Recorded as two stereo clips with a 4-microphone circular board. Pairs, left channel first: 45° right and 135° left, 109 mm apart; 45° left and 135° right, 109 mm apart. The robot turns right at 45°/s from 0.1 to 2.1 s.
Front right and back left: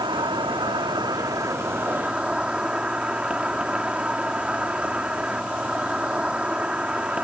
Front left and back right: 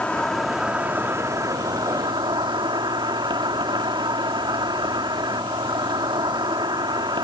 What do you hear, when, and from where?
0.0 s an insect: 120° left; by 7.2 s 150° right